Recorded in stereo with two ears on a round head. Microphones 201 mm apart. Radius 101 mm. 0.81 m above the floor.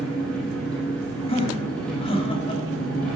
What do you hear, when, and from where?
0.0 s an engine running: 5° left (ahead or behind), 6 m
1.3 s laughter: 30° left (ahead or behind), 2.5 m